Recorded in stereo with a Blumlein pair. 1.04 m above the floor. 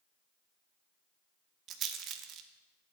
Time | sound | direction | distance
1.7 | a rattle | 30° right | 0.7 m